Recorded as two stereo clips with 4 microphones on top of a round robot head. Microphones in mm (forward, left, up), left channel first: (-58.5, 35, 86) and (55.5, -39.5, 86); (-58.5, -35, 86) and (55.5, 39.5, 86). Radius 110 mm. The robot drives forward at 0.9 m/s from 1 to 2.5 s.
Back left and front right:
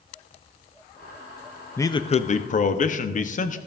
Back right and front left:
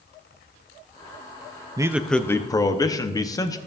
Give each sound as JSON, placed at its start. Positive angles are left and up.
{"t": 1.8, "sound": "a man speaking", "azimuth_deg": 85, "distance_m": 0.6}